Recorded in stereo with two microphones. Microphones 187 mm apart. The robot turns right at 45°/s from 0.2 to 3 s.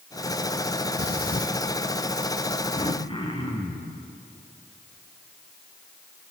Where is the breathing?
65° left (ahead or behind), 1.7 m; by 1.5 s 45° left (ahead or behind), 1.7 m.